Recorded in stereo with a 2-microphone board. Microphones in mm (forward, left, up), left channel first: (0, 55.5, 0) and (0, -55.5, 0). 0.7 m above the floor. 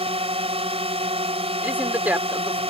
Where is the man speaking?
15° right (ahead or behind).